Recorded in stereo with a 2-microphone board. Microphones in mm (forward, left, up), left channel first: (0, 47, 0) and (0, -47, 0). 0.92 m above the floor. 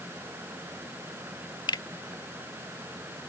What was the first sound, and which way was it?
A finger snap, 55° left (ahead or behind).